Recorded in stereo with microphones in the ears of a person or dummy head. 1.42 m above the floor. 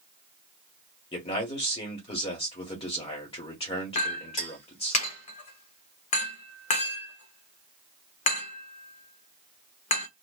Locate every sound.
1.1 s a man speaking: 35° left (ahead or behind), 1.3 m
4.0 s a clink: 40° left (ahead or behind), 1.0 m